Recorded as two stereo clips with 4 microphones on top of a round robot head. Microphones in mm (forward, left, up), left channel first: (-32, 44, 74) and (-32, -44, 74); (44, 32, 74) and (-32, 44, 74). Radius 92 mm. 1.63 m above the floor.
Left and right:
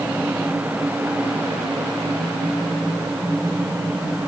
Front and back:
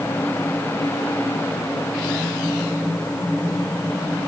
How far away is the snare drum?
No snare drum in this recording.